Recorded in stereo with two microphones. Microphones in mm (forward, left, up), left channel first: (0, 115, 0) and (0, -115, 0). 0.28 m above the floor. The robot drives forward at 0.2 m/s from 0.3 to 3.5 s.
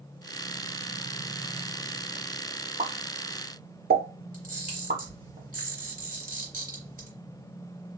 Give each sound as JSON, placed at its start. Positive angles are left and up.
{"t": 2.8, "sound": "a pop", "side_deg": -35, "distance_m": 0.8}
{"t": 4.3, "sound": "a camera shutter", "side_deg": -35, "distance_m": 1.1}